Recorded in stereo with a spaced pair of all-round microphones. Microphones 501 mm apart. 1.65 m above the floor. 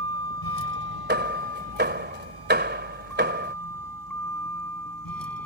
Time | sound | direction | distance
0.0 | a vehicle | 45° left (ahead or behind) | ?
1.1 | hammering | 20° right (ahead or behind) | ?